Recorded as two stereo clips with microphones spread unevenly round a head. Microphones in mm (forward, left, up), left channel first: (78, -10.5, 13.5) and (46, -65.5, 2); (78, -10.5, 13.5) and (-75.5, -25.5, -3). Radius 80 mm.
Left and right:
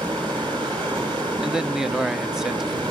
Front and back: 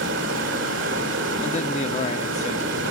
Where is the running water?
165° right, 6 m.